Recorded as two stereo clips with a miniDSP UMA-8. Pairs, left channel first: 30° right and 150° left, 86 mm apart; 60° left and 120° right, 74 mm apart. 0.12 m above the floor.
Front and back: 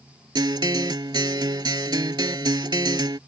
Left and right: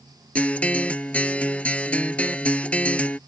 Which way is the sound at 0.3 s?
125° left.